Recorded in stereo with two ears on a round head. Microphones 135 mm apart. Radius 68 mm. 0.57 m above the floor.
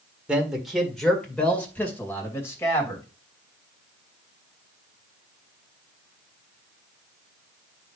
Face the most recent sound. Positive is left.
turn(degrees=20)  # may be behind; listen again after turning